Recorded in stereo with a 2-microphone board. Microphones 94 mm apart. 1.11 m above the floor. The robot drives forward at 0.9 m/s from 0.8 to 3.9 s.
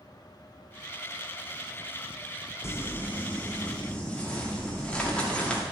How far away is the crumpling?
About 0.8 m.